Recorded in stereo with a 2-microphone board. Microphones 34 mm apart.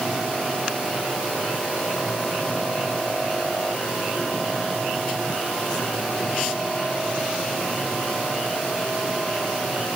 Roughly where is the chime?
No chime in this recording.